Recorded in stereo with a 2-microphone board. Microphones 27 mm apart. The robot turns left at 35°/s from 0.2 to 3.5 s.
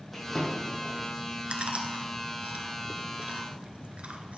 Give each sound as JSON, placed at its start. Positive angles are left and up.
{"t": 0.1, "sound": "a drawer", "side_deg": 10, "distance_m": 3.5}
{"t": 1.5, "sound": "chewing", "side_deg": -50, "distance_m": 0.9}